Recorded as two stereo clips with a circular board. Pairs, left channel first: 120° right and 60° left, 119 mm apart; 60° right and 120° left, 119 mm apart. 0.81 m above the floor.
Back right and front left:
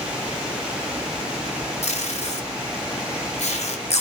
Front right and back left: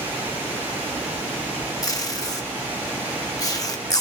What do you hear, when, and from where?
1.8 s tape being pulled: 120° right, 0.8 m